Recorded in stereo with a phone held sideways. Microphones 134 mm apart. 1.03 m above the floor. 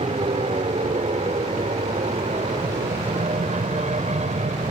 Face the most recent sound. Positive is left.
turn(degrees=-60)  # may be behind; listen again after turning